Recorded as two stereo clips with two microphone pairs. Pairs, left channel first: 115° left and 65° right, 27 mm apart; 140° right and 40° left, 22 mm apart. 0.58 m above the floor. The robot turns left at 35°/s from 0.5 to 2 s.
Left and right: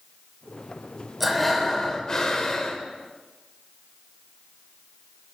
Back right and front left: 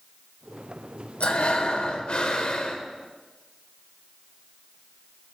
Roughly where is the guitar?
No guitar in this recording.